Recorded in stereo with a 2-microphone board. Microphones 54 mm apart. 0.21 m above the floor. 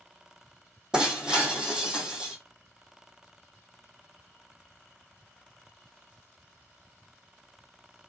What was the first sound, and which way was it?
Breaking glass, 15° right (ahead or behind).